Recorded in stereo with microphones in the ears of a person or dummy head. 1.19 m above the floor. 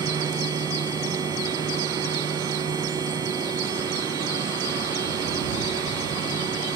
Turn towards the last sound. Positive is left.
turn(degrees=-20)  # may be behind; listen again after turning